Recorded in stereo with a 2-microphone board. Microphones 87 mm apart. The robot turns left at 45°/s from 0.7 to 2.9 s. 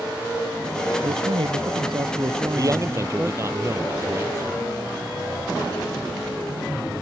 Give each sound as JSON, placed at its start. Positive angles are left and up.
{"t": 1.0, "sound": "a man speaking", "azimuth_deg": -80}
{"t": 2.5, "sound": "a man speaking", "side_deg": -45}